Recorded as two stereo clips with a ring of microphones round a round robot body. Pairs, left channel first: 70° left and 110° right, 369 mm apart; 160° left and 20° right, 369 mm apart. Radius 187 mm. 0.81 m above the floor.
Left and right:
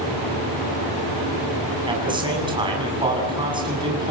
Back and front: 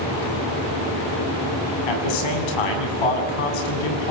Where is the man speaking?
170° left, 7.5 m.